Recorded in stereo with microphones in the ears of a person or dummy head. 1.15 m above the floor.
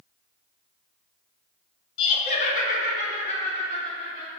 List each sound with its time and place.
2.0 s laughter: 25° left (ahead or behind), 0.8 m; by 4.4 s 30° left (ahead or behind), 1.3 m